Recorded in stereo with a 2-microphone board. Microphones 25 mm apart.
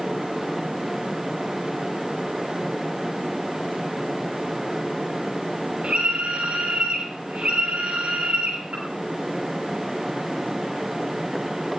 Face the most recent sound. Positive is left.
turn(degrees=-65)  # may be behind; listen again after turning